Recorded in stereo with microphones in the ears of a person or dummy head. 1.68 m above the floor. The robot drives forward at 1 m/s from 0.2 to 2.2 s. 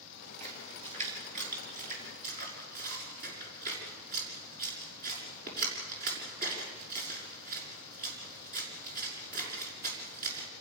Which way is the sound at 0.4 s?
35° right (ahead or behind).